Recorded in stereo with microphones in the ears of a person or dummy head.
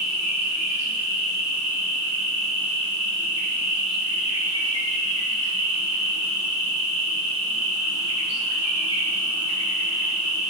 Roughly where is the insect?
Left.